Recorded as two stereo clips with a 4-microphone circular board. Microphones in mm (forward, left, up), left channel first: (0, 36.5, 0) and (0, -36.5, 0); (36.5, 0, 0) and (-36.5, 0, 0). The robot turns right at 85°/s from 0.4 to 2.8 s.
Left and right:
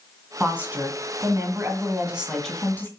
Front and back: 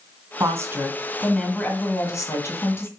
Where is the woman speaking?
165° right, 1.8 m; by 2.9 s 35° left, 1.8 m.